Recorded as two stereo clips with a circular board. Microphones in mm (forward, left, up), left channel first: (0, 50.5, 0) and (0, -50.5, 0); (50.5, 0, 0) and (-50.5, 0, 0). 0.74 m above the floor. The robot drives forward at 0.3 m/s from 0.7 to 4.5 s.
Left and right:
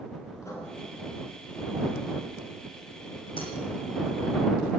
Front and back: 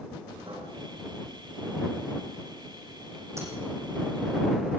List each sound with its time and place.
0.4 s writing: 150° left, 7 m
3.4 s breaking glass: 120° left, 7 m